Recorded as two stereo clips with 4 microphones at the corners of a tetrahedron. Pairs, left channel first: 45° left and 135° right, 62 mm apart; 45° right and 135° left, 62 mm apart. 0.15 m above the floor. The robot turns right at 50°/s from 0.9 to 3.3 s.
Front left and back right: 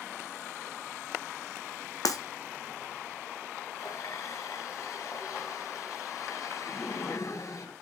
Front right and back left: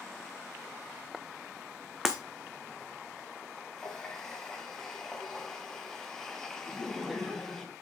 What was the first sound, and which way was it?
Breaking glass, 50° left.